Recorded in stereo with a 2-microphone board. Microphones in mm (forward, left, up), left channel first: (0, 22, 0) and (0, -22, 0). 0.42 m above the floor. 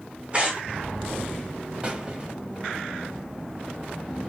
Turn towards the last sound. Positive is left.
turn(degrees=-25)  # may be behind; listen again after turning